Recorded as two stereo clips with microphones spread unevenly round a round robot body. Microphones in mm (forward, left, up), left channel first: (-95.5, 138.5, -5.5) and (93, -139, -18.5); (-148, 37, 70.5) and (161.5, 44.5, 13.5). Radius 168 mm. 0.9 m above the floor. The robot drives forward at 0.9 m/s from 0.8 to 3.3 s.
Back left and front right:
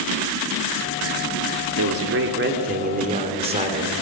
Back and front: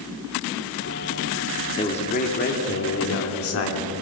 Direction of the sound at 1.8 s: 100° right.